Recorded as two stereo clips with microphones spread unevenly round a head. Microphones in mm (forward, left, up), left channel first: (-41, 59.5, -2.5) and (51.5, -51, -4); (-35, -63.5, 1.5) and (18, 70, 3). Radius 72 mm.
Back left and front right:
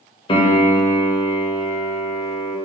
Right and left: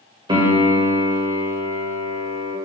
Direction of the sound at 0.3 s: 105° left.